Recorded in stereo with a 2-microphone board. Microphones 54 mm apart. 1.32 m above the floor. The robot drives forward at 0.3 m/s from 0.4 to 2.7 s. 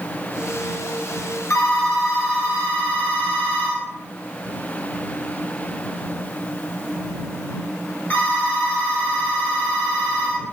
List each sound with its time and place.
1.5 s a phone ringing: 60° left (ahead or behind), 0.7 m; by 10.4 s 40° left (ahead or behind), 0.9 m